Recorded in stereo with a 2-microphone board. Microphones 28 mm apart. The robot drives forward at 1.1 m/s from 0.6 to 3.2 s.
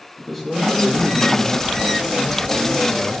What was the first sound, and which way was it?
A man speaking, 5° right (ahead or behind).